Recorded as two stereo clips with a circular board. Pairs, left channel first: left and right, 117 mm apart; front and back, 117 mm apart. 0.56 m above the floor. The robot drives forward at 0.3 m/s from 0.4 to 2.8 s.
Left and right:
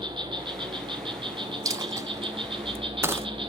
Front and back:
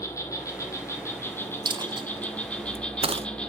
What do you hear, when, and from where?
0.0 s an insect: 55° right, 2.5 m; by 3.5 s 80° right, 2 m
1.6 s a dropped coin: 140° right, 0.6 m; by 3.3 s 155° right, 0.9 m